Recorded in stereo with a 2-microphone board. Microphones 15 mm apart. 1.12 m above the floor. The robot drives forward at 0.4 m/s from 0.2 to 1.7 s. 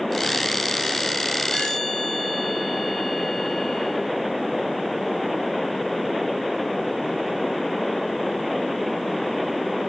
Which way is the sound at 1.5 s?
60° left (ahead or behind).